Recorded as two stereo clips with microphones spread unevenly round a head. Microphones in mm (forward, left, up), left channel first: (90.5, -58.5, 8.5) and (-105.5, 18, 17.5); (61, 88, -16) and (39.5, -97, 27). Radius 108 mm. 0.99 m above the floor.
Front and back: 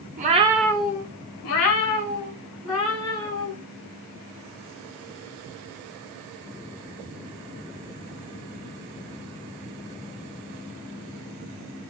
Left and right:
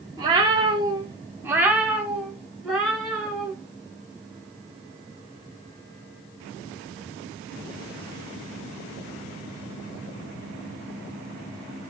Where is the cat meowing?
155° right, 0.7 m; by 3.5 s 10° right, 3 m.